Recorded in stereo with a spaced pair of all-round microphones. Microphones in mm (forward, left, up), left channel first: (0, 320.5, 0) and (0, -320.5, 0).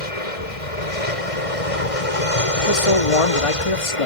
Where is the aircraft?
60° left (ahead or behind); by 4.1 s 55° left (ahead or behind).